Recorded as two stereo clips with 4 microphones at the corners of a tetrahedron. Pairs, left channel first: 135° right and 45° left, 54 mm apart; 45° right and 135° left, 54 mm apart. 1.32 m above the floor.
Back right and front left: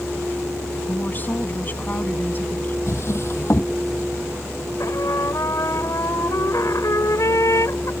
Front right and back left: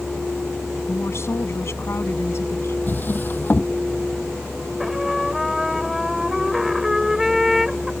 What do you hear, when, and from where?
0.9 s a woman speaking: 80° right
2.9 s a drawer: 95° right
4.8 s a trumpet: 140° right